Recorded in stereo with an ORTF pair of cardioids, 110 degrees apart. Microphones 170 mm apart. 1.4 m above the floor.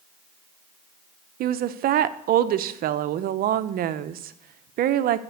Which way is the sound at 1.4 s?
65° right.